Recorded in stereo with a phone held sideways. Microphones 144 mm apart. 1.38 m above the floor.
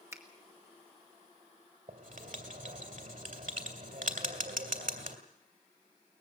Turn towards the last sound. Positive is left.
turn(degrees=-65)  # may be behind; listen again after turning